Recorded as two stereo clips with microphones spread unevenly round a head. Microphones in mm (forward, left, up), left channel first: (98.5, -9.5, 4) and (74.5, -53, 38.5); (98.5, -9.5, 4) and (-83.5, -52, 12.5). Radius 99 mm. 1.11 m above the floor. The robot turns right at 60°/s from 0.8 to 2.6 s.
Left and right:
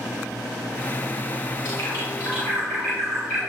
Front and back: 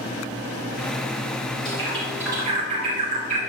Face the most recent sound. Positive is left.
turn(degrees=135)